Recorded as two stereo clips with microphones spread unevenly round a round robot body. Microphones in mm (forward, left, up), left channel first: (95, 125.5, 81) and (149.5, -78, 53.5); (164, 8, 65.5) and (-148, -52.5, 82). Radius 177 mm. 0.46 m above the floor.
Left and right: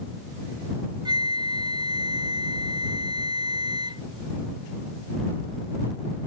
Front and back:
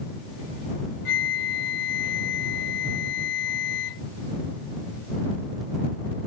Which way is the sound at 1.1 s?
5° right.